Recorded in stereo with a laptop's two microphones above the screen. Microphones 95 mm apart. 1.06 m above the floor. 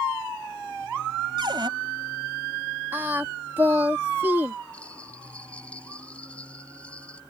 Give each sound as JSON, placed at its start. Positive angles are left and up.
{"t": 1.4, "sound": "a cupboard door", "side_deg": -55}
{"t": 2.9, "sound": "singing", "side_deg": -20}
{"t": 4.7, "sound": "a bell", "side_deg": 15}